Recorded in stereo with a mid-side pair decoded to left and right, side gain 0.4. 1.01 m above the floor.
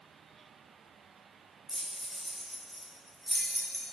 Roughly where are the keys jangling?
Ahead.